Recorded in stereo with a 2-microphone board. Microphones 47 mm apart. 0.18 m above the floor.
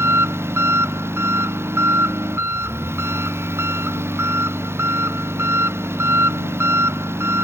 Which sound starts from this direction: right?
An engine running, at 0.0 s.